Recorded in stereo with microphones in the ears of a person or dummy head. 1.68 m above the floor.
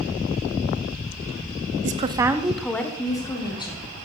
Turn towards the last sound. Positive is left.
turn(degrees=25)  # may be behind; listen again after turning